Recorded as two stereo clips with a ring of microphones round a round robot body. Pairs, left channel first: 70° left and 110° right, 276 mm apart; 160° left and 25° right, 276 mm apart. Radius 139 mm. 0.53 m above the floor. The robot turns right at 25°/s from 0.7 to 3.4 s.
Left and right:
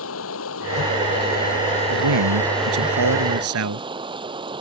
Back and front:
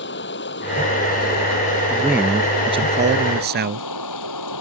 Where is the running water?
105° left; by 4.6 s 175° left.